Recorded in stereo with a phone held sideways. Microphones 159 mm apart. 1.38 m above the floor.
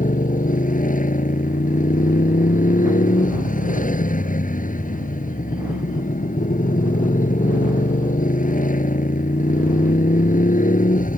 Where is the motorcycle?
55° left (ahead or behind).